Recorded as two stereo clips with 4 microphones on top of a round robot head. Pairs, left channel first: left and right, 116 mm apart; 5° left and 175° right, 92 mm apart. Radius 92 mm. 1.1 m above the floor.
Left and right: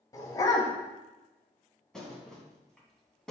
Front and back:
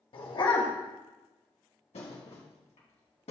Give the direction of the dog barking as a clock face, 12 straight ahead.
11 o'clock.